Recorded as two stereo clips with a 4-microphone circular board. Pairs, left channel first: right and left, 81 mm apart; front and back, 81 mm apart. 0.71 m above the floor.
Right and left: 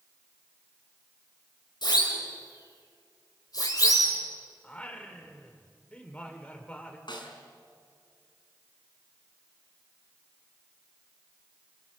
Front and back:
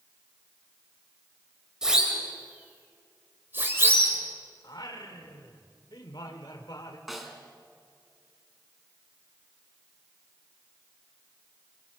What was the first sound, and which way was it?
A siren, 100° right.